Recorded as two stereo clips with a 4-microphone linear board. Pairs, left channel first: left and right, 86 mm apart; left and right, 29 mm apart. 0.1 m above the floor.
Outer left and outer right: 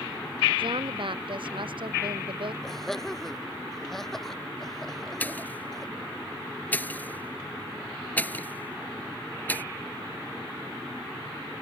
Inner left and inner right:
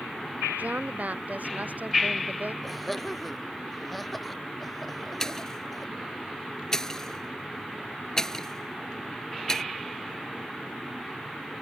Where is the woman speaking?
65° right (ahead or behind); by 2.5 s 70° right (ahead or behind).